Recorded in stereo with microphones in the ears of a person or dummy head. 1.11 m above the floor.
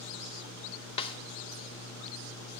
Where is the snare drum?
30° left (ahead or behind), 0.7 m.